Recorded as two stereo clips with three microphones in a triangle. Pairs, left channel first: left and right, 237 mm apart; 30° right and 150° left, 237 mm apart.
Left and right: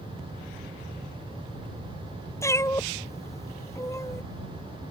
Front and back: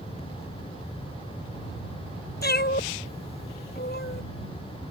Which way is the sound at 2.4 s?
10° left.